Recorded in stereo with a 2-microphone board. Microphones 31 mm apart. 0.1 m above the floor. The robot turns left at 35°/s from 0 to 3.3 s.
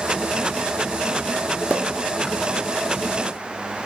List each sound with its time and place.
1.7 s a pop: 60° right (ahead or behind), 2.5 m; by 1.9 s 70° right (ahead or behind), 2.5 m